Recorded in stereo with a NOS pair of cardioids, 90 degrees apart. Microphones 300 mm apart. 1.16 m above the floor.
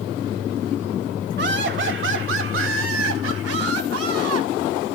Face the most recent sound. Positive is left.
turn(degrees=-60)